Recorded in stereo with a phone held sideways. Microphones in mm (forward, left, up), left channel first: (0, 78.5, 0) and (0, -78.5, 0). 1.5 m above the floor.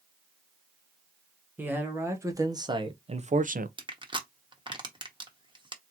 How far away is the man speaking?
About 1.4 m.